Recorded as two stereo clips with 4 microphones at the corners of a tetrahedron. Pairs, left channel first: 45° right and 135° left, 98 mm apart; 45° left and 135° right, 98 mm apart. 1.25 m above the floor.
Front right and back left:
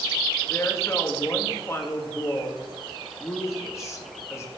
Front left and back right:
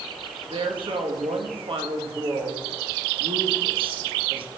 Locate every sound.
0.5 s a woman speaking: 105° right, 1.6 m